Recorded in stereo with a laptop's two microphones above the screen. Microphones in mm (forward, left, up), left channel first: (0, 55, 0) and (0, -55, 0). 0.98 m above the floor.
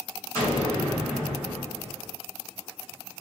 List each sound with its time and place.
0.3 s an explosion: 25° left (ahead or behind), 1.5 m